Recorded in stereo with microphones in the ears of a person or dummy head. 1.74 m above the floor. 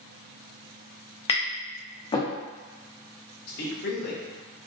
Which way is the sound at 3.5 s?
55° left (ahead or behind).